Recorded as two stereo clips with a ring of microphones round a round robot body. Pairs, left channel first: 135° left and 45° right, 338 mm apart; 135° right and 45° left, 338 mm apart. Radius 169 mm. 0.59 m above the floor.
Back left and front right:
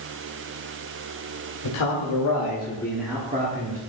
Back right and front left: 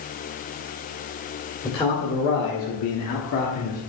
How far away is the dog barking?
No dog barking in this recording.